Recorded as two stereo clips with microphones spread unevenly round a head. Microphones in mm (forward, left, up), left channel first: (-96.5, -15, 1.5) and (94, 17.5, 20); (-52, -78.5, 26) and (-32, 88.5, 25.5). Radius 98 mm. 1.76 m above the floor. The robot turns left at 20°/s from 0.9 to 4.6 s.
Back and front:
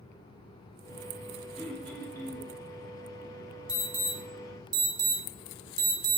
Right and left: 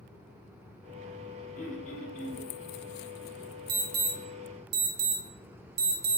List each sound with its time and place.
1.6 s throat clearing: 80° right, 0.7 m; by 2.5 s 100° right, 0.7 m
3.7 s an alarm: 90° left, 0.7 m; by 6.2 s 70° left, 0.7 m